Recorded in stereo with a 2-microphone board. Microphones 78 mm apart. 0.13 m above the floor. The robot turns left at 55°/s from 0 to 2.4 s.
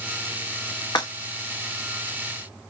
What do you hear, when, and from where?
0.9 s breaking glass: 65° left (ahead or behind), 3 m; by 1.1 s 55° left (ahead or behind), 3 m